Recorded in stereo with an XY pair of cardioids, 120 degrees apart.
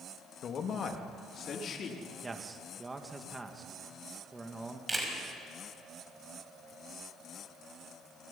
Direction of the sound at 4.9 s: 15° right.